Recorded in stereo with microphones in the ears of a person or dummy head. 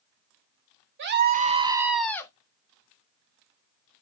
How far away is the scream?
About 0.6 m.